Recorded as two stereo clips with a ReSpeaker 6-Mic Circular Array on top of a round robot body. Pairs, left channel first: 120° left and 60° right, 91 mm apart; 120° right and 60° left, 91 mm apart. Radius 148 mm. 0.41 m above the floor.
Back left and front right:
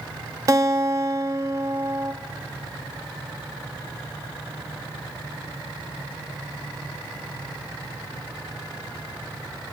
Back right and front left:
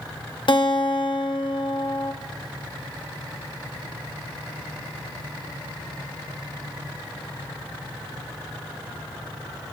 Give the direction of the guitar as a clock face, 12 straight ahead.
4 o'clock.